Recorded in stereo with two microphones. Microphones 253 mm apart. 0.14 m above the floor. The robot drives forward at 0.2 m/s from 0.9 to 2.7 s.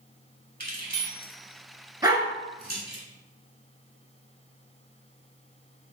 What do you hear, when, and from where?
0.6 s keys jangling: 35° right (ahead or behind), 1.1 m
2.0 s a dog barking: 15° right (ahead or behind), 0.8 m